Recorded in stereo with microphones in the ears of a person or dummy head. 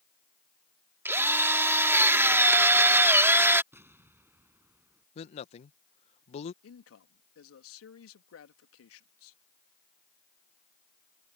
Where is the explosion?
10° right (ahead or behind).